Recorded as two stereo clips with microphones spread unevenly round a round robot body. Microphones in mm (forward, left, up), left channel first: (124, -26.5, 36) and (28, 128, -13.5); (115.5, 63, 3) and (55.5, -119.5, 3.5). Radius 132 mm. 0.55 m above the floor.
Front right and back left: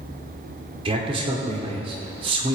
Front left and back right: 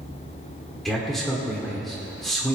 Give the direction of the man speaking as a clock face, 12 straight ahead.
7 o'clock.